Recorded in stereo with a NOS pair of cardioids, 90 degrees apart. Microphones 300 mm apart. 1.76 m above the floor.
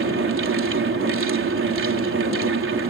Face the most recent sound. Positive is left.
turn(degrees=-45)